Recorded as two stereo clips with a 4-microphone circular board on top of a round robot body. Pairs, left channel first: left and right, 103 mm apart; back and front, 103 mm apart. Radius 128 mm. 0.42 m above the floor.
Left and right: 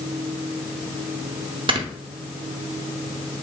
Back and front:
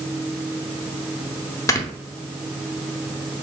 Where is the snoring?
120° right, 1.0 m.